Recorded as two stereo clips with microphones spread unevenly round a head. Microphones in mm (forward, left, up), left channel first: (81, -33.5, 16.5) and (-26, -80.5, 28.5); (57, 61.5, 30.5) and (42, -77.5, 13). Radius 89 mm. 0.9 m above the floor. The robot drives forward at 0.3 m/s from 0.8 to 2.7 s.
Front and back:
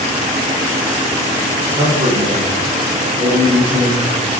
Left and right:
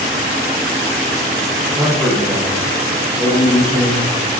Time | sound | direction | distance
1.8 | a man speaking | 175° right | 0.6 m